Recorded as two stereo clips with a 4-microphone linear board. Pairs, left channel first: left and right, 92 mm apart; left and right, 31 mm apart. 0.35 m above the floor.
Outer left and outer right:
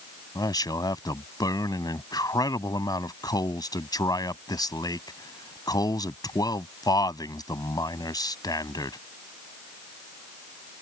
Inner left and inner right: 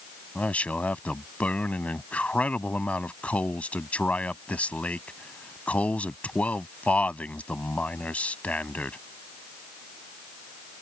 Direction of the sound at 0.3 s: 50° left (ahead or behind).